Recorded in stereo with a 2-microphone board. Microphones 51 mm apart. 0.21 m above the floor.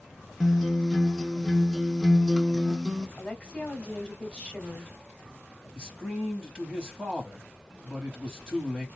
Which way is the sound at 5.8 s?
20° right (ahead or behind).